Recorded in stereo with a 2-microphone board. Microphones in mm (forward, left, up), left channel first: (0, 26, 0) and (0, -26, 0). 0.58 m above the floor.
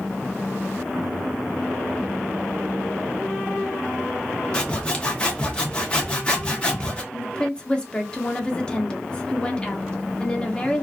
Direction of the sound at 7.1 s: 20° left (ahead or behind).